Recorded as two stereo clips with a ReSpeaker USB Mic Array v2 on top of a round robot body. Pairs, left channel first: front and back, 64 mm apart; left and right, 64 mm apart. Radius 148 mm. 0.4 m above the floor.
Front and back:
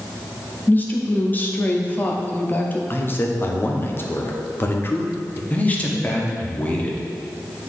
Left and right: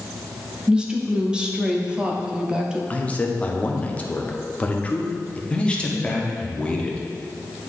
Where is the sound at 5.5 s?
35° left, 1.3 m.